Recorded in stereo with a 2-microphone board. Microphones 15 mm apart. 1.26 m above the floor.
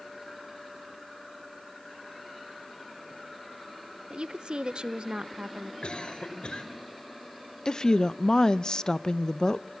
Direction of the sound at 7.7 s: 45° left (ahead or behind).